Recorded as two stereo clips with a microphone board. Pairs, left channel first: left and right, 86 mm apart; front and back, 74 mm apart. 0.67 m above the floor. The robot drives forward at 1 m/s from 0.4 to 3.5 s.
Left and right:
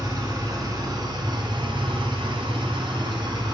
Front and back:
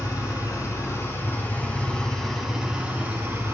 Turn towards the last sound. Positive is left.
turn(degrees=-125)